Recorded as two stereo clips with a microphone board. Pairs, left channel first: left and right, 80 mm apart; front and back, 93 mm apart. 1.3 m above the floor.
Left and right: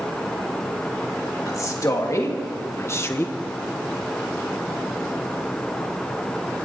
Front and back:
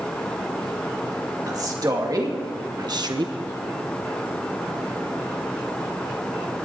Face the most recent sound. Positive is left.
turn(degrees=150)